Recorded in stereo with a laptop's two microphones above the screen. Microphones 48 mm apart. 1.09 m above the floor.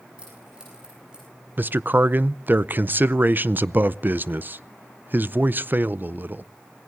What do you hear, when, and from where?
0.2 s keys jangling: 20° right (ahead or behind), 9 m; by 1.3 s 15° right (ahead or behind), 9.5 m
1.6 s a man speaking: 45° right (ahead or behind), 0.5 m